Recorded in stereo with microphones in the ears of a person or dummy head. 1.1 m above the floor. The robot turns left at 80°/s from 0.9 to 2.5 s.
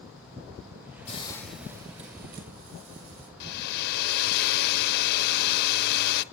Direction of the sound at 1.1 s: 35° left.